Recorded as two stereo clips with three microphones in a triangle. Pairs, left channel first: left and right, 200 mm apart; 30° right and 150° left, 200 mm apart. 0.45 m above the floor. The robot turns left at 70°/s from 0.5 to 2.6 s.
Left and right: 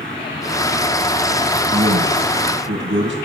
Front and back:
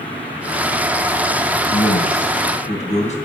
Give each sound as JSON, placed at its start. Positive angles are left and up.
{"t": 1.7, "sound": "a man speaking", "azimuth_deg": -20, "distance_m": 3.5}